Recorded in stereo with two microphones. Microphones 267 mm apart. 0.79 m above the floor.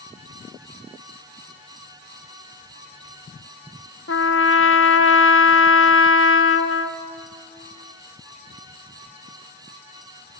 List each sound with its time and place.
4.1 s a trumpet: 50° left (ahead or behind), 0.9 m